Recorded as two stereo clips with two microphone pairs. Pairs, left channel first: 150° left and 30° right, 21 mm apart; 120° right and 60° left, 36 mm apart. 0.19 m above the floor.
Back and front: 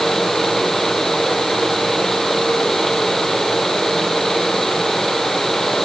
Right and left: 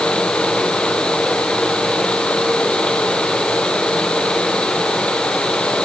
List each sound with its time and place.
Only background noise.